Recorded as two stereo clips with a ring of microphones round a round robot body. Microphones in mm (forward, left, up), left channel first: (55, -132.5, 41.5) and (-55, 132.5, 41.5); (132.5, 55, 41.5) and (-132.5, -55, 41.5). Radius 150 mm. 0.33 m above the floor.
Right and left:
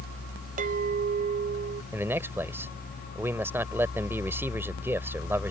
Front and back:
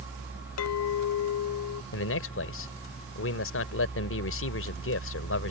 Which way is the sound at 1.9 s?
35° left.